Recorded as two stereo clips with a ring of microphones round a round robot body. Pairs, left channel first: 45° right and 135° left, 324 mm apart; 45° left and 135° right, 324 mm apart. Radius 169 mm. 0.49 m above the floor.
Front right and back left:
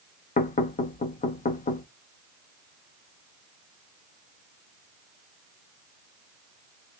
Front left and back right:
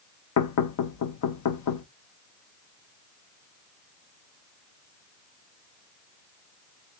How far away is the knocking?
About 0.7 m.